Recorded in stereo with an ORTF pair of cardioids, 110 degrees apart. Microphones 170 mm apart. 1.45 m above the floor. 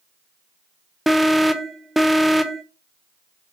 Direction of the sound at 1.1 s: Straight ahead.